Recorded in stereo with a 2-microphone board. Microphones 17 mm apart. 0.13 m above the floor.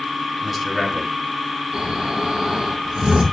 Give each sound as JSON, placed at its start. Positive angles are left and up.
{"t": 0.4, "sound": "a man speaking", "side_deg": -10, "distance_m": 3.0}
{"t": 1.7, "sound": "snoring", "side_deg": -55, "distance_m": 5.5}